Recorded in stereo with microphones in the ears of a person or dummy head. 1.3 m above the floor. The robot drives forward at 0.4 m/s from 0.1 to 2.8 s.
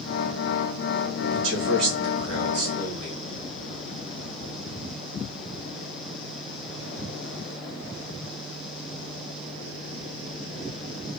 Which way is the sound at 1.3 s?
65° right (ahead or behind).